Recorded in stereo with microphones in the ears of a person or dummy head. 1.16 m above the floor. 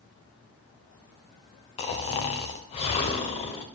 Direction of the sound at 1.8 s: 35° left (ahead or behind).